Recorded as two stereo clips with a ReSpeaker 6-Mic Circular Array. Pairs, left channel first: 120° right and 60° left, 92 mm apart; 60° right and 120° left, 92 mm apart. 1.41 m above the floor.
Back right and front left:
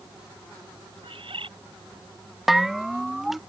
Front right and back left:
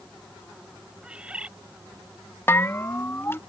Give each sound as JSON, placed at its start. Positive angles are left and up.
{"t": 1.0, "sound": "a bird", "azimuth_deg": 45}
{"t": 2.5, "sound": "a bell", "azimuth_deg": -25}